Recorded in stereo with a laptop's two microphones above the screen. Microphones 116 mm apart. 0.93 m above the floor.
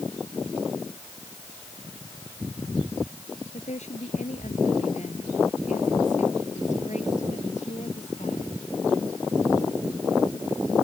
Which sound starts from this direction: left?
A woman speaking, at 3.5 s.